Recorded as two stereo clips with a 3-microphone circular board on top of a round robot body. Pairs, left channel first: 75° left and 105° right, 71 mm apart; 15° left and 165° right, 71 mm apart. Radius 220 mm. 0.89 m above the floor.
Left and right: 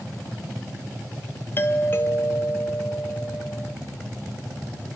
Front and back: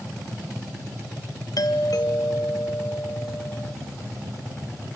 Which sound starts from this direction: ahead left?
A doorbell, at 1.6 s.